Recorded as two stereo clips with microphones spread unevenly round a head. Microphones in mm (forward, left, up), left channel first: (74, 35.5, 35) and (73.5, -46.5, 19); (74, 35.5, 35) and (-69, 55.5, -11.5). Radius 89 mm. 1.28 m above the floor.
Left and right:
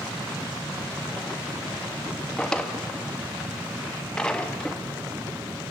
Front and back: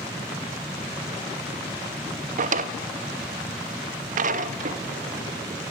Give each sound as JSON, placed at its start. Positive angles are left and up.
{"t": 2.4, "sound": "a drawer", "azimuth_deg": 150, "distance_m": 0.7}